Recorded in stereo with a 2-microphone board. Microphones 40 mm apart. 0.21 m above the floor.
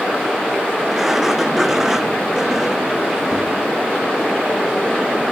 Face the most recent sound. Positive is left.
turn(degrees=-5)  # may be behind; listen again after turning